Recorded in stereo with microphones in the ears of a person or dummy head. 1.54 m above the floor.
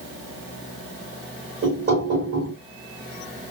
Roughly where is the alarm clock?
I don't hear an alarm clock.